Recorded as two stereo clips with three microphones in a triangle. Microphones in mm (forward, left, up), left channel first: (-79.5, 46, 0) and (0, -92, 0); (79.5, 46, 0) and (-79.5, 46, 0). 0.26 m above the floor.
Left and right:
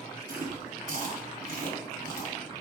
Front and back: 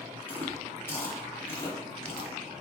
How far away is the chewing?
About 1.7 m.